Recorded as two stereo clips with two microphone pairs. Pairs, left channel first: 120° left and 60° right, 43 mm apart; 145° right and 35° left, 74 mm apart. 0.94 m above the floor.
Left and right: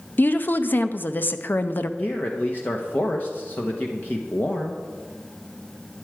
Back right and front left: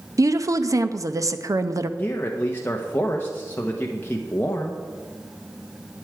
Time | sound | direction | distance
0.2 | a woman speaking | 75° left | 0.6 m
2.0 | a man speaking | 160° left | 0.9 m